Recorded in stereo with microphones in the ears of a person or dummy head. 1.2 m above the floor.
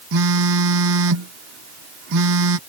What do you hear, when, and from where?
0.1 s a phone buzzing: 65° right (ahead or behind)